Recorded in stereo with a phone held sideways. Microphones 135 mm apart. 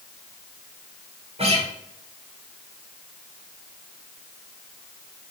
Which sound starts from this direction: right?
A guitar, at 1.4 s.